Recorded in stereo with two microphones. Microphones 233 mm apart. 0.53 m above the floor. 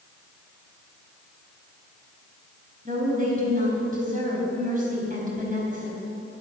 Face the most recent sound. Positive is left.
turn(degrees=-35)  # may be behind; listen again after turning